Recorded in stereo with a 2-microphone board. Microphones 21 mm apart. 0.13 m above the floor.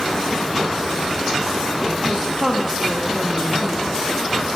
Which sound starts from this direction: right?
A woman speaking, at 2.0 s.